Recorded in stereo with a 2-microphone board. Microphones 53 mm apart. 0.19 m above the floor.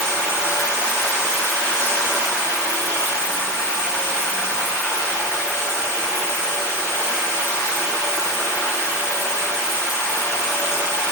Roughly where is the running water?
Left.